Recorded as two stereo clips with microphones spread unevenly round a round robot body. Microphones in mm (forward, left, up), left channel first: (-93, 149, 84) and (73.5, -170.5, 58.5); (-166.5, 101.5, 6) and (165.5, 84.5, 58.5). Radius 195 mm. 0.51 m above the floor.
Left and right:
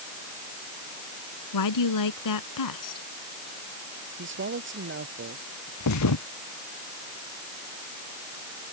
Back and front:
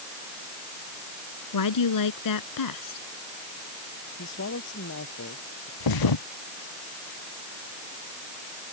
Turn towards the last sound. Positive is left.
turn(degrees=165)